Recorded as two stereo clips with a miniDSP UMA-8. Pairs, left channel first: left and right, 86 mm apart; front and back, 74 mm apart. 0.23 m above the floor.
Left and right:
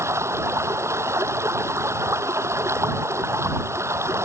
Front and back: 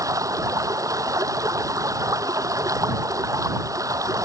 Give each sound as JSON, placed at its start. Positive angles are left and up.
{"t": 0.0, "sound": "running water", "azimuth_deg": -145}